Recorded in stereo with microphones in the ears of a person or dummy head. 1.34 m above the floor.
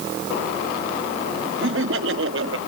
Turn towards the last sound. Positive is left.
turn(degrees=-80)